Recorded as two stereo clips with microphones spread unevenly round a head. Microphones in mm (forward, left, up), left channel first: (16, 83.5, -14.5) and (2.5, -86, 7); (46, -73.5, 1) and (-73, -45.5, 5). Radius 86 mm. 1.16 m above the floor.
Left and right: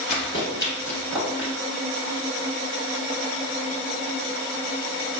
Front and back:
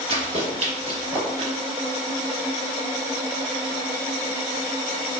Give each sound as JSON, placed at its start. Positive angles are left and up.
{"t": 0.1, "sound": "running footsteps", "azimuth_deg": 130, "distance_m": 1.7}